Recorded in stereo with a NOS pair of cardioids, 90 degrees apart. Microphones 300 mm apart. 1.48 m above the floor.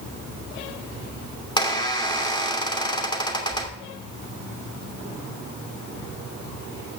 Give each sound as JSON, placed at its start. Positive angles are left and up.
{"t": 1.6, "sound": "a squeak", "azimuth_deg": 15, "distance_m": 2.5}